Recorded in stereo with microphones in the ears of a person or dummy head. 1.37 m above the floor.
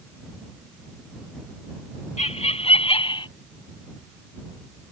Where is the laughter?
30° left (ahead or behind); by 3.3 s 25° left (ahead or behind).